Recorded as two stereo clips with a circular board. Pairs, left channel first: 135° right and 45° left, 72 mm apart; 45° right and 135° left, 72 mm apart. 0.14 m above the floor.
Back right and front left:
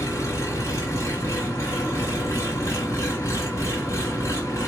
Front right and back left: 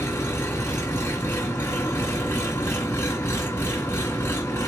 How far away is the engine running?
About 2.5 m.